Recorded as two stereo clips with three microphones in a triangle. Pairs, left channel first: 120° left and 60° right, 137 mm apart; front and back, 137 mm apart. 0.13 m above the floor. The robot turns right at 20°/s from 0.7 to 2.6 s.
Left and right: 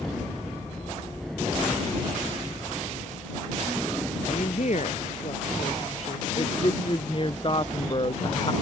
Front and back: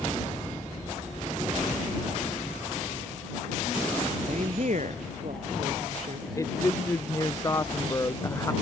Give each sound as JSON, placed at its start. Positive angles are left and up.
{"t": 4.3, "sound": "a woman speaking", "azimuth_deg": 150}
{"t": 6.4, "sound": "a woman speaking", "azimuth_deg": 70}